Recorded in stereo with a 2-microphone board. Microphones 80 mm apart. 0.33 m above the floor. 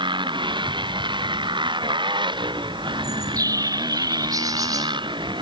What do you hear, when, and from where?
0.0 s a motorcycle: 80° right
3.0 s a bird: 45° right (ahead or behind)